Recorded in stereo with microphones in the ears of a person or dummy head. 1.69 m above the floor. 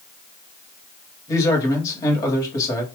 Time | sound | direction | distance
1.3 | a man speaking | 25° left (ahead or behind) | 1.7 m